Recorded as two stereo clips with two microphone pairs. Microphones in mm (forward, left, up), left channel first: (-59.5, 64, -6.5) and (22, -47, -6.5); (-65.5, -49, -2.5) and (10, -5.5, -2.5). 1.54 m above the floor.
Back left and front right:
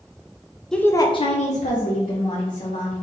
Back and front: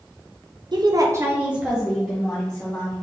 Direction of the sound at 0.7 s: 45° left.